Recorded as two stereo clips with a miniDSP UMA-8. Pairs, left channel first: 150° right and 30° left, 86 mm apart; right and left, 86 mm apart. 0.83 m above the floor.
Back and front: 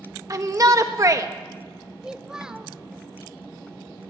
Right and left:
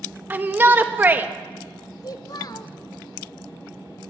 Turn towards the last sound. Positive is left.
turn(degrees=-50)